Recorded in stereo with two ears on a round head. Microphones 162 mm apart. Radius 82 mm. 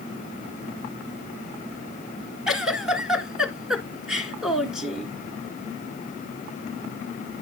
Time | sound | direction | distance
2.5 | a giggle | 5° right (ahead or behind) | 1.3 m